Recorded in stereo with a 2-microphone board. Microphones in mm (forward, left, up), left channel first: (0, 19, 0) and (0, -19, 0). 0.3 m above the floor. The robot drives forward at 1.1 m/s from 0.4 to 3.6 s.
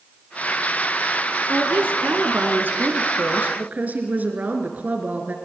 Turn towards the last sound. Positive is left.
turn(degrees=-50)  # may be behind; listen again after turning